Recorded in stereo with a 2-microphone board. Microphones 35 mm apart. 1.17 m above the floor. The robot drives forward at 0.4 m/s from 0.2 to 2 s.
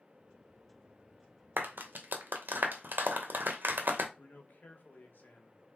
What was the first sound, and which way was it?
A clap, 80° right.